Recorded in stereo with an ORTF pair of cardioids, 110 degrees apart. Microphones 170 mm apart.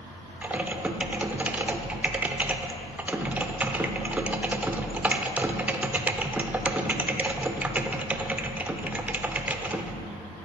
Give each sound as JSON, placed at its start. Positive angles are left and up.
{"t": 0.4, "sound": "typing on a keyboard", "azimuth_deg": -10, "distance_m": 0.7}